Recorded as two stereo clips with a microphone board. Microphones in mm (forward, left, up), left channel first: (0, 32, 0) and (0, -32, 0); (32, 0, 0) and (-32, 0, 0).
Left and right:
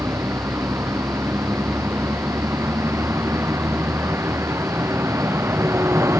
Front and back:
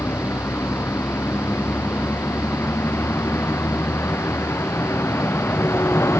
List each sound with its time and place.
0.0 s a vehicle: 50° right